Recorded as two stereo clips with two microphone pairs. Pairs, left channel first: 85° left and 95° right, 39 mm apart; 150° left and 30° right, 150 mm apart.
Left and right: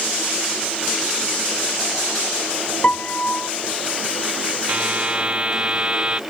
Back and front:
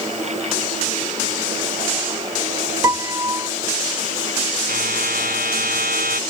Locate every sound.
2.8 s a piano: 35° left
4.7 s a buzzer: 35° right